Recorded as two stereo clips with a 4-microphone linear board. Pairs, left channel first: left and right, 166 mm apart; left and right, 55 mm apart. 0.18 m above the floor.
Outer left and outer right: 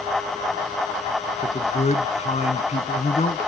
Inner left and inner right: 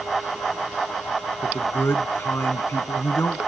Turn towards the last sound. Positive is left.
turn(degrees=45)  # may be behind; listen again after turning